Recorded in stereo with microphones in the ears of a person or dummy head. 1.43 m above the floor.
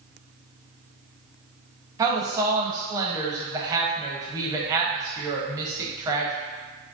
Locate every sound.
2.0 s a woman speaking: 20° right (ahead or behind), 0.6 m